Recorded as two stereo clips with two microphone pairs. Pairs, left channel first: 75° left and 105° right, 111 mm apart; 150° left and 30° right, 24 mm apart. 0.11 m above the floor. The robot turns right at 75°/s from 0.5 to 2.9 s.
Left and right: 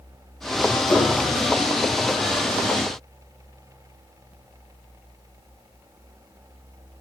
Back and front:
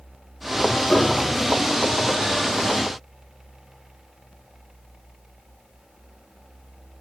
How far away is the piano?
About 6 m.